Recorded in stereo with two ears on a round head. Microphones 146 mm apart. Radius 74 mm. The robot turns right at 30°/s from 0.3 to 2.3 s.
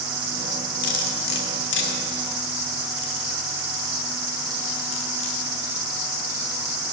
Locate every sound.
0.8 s cutlery clinking: 50° left (ahead or behind), 1.6 m; by 5.4 s 85° left, 1.6 m